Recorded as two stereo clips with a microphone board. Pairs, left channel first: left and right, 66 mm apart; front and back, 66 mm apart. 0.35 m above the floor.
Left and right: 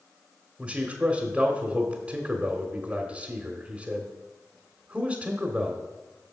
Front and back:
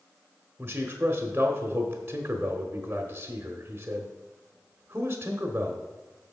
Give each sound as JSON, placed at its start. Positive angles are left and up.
{"t": 0.6, "sound": "a man speaking", "azimuth_deg": -150, "distance_m": 1.1}